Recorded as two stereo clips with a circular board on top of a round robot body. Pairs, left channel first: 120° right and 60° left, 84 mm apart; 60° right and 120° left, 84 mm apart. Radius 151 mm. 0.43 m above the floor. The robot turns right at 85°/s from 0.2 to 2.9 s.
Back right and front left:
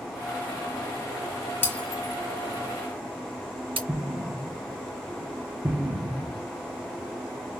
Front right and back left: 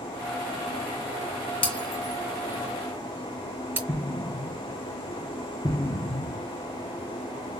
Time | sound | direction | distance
1.6 | breaking glass | 55° right | 2.5 m
3.9 | an explosion | 10° right | 1.1 m